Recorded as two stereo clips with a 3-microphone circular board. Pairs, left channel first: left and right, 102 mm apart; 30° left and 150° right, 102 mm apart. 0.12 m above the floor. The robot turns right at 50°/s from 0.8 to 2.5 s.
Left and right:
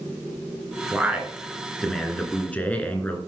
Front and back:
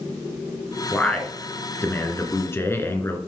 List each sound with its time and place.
0.9 s a man speaking: 45° right, 1.5 m; by 3.2 s 35° left, 1.5 m